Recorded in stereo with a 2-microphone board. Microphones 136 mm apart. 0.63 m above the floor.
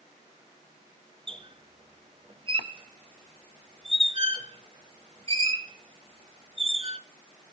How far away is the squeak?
About 1.2 m.